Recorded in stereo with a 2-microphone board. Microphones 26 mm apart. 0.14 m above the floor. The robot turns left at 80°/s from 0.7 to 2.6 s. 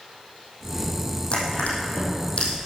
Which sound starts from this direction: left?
Crushing, at 1.3 s.